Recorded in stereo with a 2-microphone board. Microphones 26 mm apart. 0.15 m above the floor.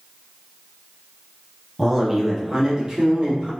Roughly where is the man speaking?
Centre.